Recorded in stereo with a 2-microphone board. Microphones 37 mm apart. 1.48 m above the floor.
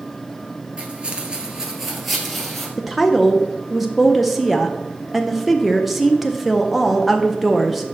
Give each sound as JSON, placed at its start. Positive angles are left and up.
{"t": 0.8, "sound": "footsteps", "side_deg": -30, "distance_m": 1.7}
{"t": 2.8, "sound": "a woman speaking", "side_deg": 0, "distance_m": 0.5}